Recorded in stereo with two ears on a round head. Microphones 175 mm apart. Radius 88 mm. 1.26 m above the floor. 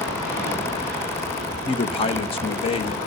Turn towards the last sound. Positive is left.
turn(degrees=30)  # may be behind; listen again after turning